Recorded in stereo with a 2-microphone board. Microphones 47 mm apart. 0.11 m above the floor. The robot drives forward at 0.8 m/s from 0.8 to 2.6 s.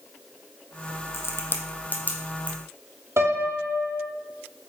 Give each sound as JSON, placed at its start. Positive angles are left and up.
{"t": 1.1, "sound": "a crack", "side_deg": 75, "distance_m": 0.7}
{"t": 3.2, "sound": "a piano", "side_deg": -70, "distance_m": 0.8}